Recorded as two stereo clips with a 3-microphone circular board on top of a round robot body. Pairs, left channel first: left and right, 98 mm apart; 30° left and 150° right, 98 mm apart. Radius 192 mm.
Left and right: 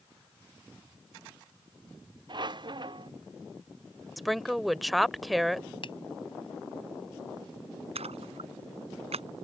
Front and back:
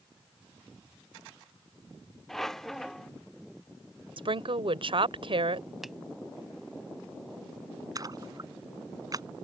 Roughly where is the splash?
Right.